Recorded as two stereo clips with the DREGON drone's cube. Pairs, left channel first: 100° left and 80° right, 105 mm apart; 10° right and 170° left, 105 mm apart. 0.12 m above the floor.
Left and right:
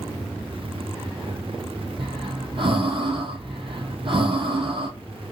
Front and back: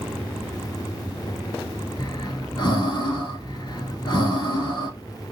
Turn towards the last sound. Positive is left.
turn(degrees=-55)